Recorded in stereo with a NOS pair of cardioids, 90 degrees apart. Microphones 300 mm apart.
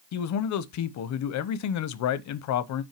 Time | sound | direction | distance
0.1 | a man speaking | 65° left | 0.9 m